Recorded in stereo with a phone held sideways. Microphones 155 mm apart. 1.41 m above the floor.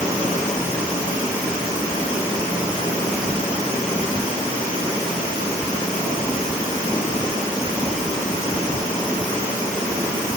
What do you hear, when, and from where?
Only background noise.